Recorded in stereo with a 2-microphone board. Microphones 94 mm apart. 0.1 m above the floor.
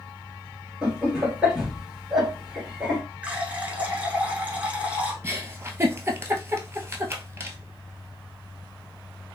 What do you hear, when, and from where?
0.8 s laughter: 5° right (ahead or behind), 1.6 m
3.2 s a running tap: 15° right (ahead or behind), 0.8 m
5.2 s a giggle: 25° right (ahead or behind), 0.6 m